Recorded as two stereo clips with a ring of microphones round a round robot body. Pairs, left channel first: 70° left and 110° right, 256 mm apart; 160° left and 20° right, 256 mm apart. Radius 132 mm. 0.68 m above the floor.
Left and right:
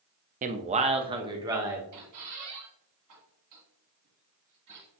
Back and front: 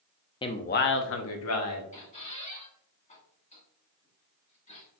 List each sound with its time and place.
0.4 s a man speaking: 145° right, 0.5 m; by 1.8 s 170° left, 1.1 m
1.9 s a squeak: 140° right, 1.7 m